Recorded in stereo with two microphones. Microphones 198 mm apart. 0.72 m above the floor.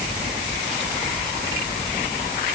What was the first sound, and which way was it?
Only background noise.